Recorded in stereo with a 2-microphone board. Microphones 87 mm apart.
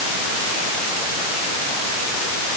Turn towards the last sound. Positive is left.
No sound to turn to.